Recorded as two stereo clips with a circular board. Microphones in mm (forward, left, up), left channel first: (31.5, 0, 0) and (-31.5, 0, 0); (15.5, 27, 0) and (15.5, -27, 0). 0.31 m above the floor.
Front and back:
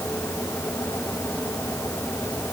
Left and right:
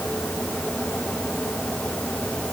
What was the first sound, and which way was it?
Only background noise.